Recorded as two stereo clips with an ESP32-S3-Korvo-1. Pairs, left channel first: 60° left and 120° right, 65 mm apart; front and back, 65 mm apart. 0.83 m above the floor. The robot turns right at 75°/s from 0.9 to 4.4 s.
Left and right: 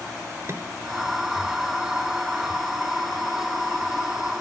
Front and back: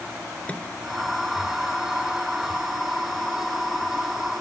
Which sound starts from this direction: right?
A microwave, at 0.5 s.